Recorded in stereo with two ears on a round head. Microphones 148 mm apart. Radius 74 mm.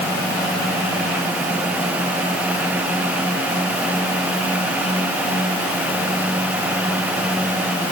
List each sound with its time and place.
Only background noise.